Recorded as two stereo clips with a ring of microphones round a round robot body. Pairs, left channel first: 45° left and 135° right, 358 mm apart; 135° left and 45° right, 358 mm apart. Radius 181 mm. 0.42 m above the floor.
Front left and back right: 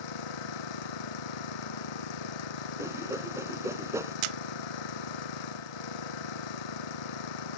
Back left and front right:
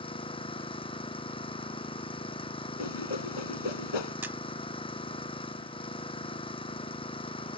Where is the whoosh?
140° left.